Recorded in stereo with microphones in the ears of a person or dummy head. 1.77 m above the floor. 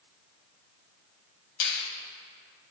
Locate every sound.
1.6 s a finger snap: 70° left (ahead or behind), 2.5 m